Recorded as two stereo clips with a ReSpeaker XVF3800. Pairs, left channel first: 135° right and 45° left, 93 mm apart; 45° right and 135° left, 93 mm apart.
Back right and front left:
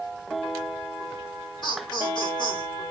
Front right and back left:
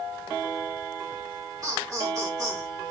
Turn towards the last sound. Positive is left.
turn(degrees=-170)